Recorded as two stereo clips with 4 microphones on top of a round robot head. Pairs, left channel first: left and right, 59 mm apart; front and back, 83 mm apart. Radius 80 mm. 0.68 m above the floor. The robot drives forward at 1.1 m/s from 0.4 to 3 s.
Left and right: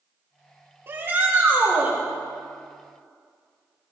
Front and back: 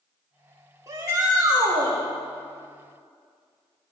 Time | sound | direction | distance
0.9 | a shout | 130° right | 1.9 m